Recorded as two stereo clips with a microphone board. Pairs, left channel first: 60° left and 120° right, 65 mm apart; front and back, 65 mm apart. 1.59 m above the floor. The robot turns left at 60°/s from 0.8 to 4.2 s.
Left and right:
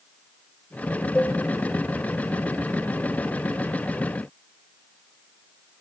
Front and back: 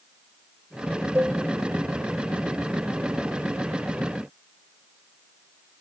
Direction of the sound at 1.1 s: 125° left.